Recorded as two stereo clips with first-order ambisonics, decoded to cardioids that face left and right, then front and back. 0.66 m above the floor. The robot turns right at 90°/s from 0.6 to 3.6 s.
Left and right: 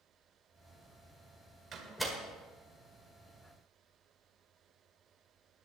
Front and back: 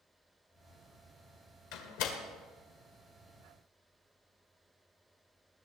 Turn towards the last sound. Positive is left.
turn(degrees=145)